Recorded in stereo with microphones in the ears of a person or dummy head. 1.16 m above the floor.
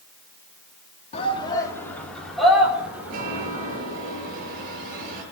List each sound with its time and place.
1.1 s a shout: 35° left (ahead or behind), 2.5 m; by 3.8 s 15° right (ahead or behind), 5.5 m
3.1 s a chime: 45° right (ahead or behind), 4.5 m